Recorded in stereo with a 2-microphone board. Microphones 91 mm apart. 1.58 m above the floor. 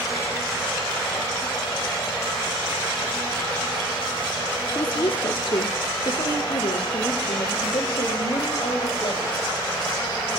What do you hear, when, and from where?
4.8 s a woman speaking: 65° left (ahead or behind), 1.2 m; by 9.4 s 75° left (ahead or behind), 3.5 m